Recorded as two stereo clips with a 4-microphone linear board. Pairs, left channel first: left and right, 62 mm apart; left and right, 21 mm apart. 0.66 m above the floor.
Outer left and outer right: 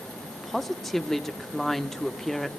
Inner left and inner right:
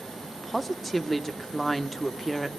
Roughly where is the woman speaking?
Centre.